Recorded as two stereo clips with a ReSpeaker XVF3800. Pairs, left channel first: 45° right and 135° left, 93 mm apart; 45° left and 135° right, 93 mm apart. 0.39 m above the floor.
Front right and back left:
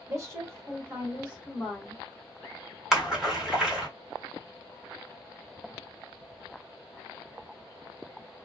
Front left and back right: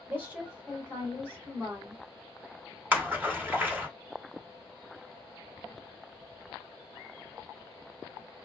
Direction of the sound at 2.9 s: 160° right.